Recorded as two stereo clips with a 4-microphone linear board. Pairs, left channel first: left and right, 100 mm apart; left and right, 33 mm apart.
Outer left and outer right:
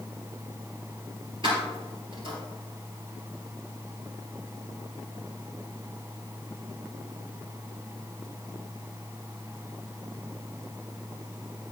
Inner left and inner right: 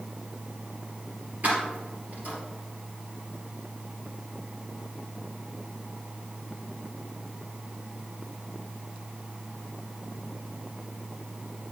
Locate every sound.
1.4 s keys jangling: 55° right (ahead or behind), 3.5 m